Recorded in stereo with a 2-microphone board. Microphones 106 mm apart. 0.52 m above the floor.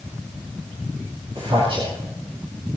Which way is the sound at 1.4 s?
55° right (ahead or behind).